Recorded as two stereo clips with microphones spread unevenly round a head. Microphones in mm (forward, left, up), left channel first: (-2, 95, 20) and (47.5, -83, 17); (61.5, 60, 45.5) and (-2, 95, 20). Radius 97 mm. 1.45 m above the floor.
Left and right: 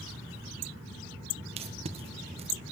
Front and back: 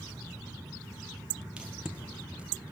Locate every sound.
1.6 s tape being pulled: 135° right, 1.4 m